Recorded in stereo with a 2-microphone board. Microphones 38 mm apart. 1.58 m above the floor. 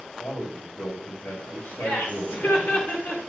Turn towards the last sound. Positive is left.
turn(degrees=75)  # may be behind; listen again after turning